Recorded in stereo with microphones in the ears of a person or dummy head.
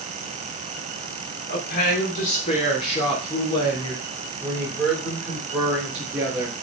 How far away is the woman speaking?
About 3 m.